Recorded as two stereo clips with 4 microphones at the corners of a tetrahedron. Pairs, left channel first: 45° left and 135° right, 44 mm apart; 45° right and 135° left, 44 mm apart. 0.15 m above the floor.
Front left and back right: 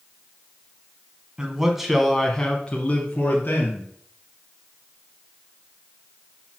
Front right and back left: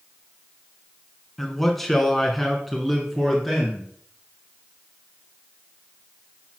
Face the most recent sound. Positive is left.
turn(degrees=50)